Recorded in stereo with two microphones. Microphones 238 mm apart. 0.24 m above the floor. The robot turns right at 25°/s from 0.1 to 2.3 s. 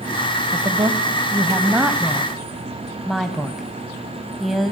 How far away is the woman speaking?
About 1.1 m.